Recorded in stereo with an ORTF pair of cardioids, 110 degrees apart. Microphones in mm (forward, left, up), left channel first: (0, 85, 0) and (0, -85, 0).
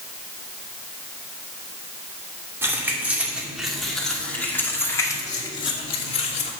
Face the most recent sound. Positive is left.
turn(degrees=40)